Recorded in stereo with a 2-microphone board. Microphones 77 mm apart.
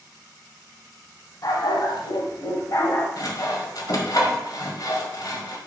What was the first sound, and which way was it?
A dog barking, 60° left (ahead or behind).